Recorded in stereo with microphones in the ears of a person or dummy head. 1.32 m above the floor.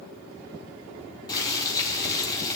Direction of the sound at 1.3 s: 20° left (ahead or behind).